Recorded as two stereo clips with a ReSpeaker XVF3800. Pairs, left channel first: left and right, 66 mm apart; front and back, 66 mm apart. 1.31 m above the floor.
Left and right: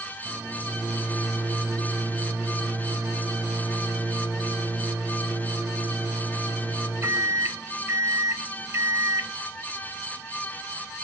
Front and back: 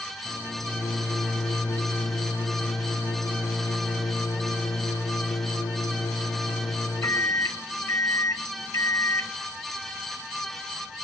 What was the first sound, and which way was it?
A microwave, 40° right.